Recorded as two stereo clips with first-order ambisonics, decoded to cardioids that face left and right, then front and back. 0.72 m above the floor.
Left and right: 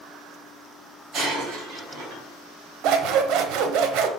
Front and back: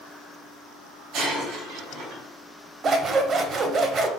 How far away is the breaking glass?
About 2.5 m.